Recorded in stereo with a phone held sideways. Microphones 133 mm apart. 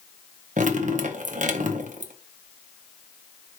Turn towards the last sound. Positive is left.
turn(degrees=-70)  # may be behind; listen again after turning